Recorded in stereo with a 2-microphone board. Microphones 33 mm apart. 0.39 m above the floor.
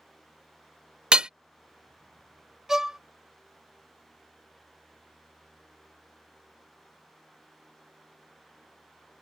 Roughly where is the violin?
Centre.